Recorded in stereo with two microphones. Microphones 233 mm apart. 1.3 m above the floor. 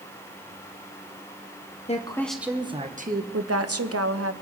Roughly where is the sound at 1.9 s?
Left.